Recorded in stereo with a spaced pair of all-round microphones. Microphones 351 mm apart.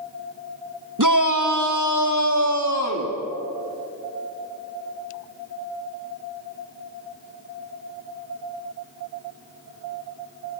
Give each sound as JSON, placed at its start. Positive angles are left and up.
{"t": 1.0, "sound": "a shout", "side_deg": -60, "distance_m": 1.5}